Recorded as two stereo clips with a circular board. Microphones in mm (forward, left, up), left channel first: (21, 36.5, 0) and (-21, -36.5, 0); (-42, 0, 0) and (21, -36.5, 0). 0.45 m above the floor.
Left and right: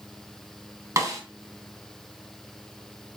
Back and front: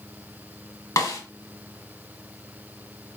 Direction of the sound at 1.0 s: 170° right.